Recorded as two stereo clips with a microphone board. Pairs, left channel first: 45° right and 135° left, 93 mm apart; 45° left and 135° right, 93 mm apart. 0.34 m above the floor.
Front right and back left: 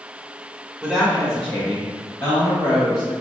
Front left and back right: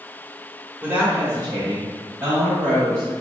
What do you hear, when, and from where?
0.8 s a woman speaking: 170° right, 0.9 m; by 3.1 s 85° right, 1.9 m